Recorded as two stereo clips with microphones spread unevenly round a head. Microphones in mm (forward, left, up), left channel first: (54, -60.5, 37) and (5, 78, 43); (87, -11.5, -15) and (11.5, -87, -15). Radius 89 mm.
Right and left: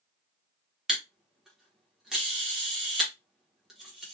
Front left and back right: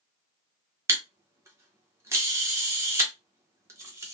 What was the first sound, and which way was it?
A camera shutter, 170° right.